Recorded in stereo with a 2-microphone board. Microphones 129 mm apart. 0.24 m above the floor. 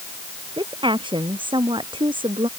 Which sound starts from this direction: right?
A woman speaking, at 0.6 s.